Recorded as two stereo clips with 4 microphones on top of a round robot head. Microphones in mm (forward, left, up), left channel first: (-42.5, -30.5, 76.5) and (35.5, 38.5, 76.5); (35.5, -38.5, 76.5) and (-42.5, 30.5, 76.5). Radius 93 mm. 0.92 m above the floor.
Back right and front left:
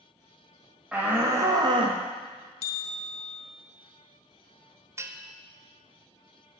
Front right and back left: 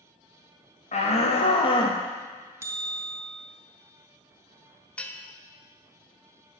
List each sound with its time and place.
0.9 s a shout: 35° right, 1.4 m; by 2.0 s 10° left, 1.1 m
2.6 s a bell: 160° right, 0.5 m
5.0 s a bell: 25° left, 0.9 m